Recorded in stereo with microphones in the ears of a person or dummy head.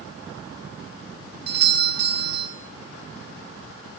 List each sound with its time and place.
1.5 s a doorbell: 65° right (ahead or behind), 3 m